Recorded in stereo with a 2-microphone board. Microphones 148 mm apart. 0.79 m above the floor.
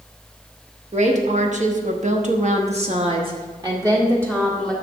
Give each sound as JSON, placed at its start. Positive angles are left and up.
{"t": 0.9, "sound": "a woman speaking", "side_deg": -50, "distance_m": 1.4}